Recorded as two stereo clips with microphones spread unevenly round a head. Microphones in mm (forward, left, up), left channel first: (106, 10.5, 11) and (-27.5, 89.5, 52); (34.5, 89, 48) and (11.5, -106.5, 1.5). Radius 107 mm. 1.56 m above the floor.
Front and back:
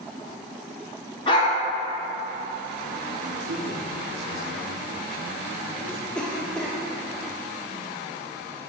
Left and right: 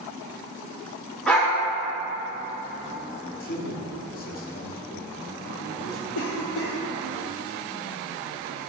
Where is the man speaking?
130° left, 0.9 m.